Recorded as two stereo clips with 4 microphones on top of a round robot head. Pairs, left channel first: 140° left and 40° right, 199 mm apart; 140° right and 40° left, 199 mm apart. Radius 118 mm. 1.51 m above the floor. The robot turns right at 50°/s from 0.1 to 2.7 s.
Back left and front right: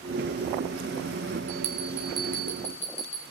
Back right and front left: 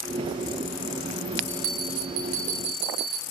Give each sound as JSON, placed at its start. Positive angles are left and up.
{"t": 1.5, "sound": "a bell", "azimuth_deg": 15, "distance_m": 7.0}